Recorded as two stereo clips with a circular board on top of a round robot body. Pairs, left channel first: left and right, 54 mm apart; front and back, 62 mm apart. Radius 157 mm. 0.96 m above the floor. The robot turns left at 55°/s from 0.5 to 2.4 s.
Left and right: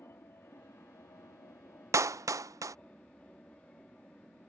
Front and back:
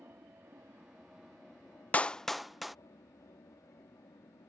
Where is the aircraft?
130° left; by 4.5 s 25° left.